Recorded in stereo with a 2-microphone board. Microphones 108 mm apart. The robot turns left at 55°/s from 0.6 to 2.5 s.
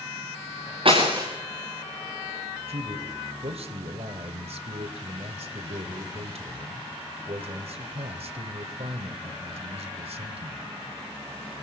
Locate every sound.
0.8 s breaking glass: 55° right (ahead or behind), 5 m; by 1.3 s 30° right (ahead or behind), 5 m
2.7 s a man speaking: 70° right (ahead or behind), 2.5 m